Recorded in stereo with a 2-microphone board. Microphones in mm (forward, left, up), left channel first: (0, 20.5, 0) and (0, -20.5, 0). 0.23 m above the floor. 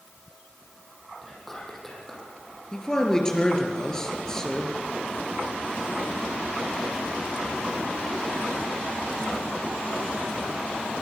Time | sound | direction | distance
1.2 | whispering | 10° left (ahead or behind) | 8 m
2.7 | a man speaking | 15° left (ahead or behind) | 4 m